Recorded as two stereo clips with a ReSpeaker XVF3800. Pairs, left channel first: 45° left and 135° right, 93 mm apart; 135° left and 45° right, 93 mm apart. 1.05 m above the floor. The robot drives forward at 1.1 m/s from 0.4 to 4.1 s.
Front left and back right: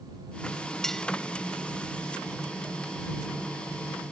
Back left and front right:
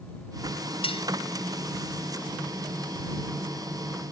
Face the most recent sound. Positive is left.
turn(degrees=155)